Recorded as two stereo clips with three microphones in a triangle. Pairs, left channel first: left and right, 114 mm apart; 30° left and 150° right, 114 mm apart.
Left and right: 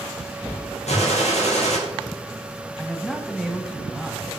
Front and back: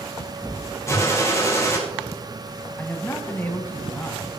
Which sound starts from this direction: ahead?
A man speaking, at 2.8 s.